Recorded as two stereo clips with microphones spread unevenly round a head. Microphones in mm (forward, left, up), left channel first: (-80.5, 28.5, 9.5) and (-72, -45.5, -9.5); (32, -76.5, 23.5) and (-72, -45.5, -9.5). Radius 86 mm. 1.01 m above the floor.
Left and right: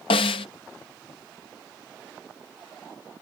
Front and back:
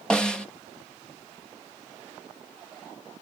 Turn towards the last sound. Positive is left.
turn(degrees=70)